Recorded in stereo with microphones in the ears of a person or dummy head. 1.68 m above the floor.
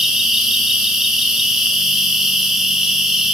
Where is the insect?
Centre (ahead or behind), 1.5 m.